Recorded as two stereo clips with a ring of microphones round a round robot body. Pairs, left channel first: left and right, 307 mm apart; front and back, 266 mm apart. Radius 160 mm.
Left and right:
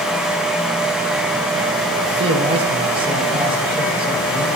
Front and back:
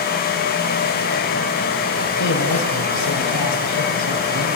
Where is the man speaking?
15° right, 3 m.